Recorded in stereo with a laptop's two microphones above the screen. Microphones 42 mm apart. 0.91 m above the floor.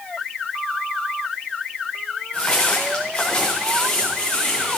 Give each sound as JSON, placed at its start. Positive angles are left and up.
{"t": 2.3, "sound": "footsteps", "side_deg": 15, "distance_m": 6.0}